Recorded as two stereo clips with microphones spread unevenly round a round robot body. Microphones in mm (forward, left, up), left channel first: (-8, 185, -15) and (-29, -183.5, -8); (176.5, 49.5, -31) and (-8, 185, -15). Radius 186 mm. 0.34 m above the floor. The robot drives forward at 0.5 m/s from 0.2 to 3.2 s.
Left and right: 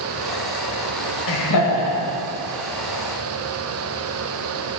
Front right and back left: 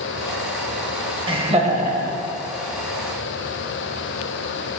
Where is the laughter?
75° left, 1.2 m; by 2.2 s 105° left, 1.2 m.